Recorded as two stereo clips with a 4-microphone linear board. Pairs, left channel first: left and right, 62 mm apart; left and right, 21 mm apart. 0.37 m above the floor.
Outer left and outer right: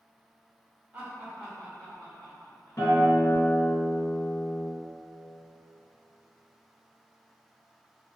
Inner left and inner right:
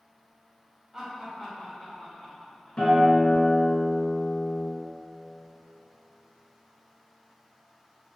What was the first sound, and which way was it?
Laughter, 25° right (ahead or behind).